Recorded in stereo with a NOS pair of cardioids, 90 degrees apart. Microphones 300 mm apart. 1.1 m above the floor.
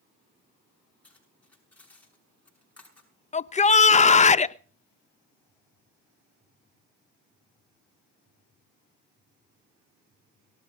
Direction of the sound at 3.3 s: 25° left.